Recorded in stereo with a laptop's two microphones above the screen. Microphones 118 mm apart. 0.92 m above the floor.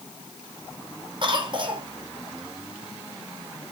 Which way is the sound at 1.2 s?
45° right (ahead or behind).